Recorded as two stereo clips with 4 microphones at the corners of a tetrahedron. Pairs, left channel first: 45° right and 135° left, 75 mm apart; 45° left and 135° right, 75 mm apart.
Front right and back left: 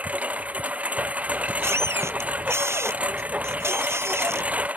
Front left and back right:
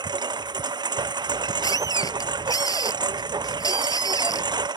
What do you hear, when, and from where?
0.0 s a lawn mower: 155° right
1.3 s a squeak: 80° left